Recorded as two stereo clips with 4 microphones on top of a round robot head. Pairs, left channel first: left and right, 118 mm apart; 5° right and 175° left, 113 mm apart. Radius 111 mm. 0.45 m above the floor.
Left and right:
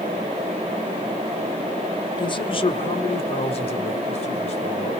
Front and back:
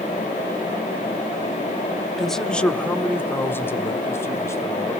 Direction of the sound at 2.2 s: 85° left.